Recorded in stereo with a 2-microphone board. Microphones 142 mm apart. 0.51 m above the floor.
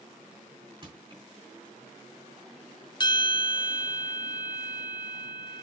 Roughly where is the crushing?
Right.